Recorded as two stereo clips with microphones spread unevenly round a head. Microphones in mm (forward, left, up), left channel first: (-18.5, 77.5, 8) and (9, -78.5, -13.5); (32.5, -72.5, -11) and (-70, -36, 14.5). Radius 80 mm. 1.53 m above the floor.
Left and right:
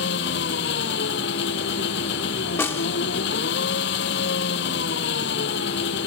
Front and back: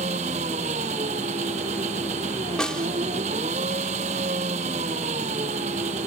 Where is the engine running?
115° left.